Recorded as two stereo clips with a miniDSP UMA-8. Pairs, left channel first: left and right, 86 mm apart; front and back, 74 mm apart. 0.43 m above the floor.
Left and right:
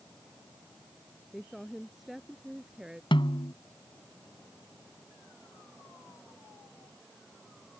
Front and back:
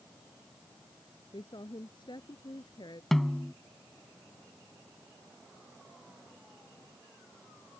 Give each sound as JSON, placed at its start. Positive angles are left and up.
{"t": 1.3, "sound": "a woman speaking", "azimuth_deg": 5}
{"t": 3.1, "sound": "a snare drum", "azimuth_deg": 85}